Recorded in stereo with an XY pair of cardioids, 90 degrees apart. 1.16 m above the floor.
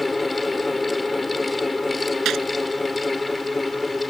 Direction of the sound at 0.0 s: 25° left.